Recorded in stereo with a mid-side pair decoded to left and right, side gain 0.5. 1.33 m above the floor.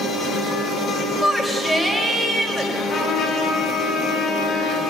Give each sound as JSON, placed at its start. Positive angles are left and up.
{"t": 1.2, "sound": "a shout", "azimuth_deg": 0, "distance_m": 6.0}
{"t": 2.8, "sound": "a trumpet", "azimuth_deg": 50, "distance_m": 8.0}